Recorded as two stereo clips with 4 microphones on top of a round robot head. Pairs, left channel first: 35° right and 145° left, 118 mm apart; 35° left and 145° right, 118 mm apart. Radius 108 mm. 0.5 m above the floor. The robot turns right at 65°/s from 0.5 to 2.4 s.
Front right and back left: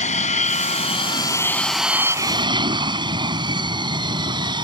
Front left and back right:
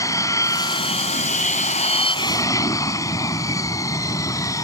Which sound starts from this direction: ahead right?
An aircraft, at 0.0 s.